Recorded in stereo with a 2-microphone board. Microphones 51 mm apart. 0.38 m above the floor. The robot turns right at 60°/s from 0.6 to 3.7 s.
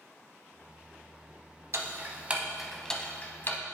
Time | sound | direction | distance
1.7 | ticking | 60° right (ahead or behind) | 0.6 m